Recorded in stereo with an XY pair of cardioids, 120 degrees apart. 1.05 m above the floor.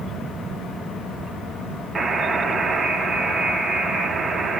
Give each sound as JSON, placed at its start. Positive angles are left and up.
{"t": 1.9, "sound": "a buzzer", "azimuth_deg": -30, "distance_m": 0.6}